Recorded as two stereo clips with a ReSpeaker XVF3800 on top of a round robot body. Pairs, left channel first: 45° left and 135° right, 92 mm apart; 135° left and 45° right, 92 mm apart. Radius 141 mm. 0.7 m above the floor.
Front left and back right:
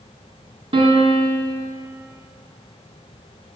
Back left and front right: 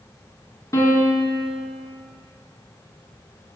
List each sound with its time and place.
0.7 s a piano: 165° right, 2 m